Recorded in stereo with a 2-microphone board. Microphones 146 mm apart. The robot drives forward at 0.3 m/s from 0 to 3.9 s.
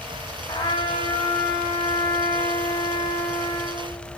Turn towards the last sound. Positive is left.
turn(degrees=25)  # may be behind; listen again after turning